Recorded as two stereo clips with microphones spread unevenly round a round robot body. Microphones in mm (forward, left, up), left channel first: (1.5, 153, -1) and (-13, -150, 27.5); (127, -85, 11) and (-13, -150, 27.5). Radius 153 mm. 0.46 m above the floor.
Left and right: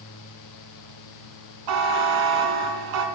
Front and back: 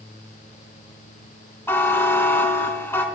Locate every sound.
1.7 s a buzzer: 55° right, 1.1 m